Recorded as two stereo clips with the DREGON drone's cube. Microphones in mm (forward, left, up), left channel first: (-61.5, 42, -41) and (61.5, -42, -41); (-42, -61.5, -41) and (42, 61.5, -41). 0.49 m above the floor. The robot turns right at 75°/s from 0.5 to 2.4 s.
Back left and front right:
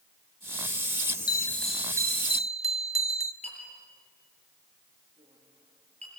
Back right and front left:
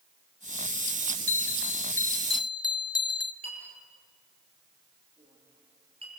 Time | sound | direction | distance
1.3 | a bell | 155° right | 0.8 m
3.4 | a clink | 5° left | 7.5 m